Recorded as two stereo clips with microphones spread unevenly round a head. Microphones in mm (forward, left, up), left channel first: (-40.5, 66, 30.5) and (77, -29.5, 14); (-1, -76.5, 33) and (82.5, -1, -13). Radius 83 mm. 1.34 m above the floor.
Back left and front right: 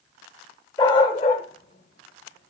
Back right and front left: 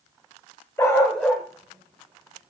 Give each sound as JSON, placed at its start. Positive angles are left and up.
{"t": 0.8, "sound": "a dog barking", "azimuth_deg": -170, "distance_m": 1.3}